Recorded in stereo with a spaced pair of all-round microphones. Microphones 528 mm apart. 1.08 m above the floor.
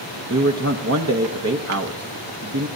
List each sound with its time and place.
0.3 s a man speaking: 30° right (ahead or behind), 0.7 m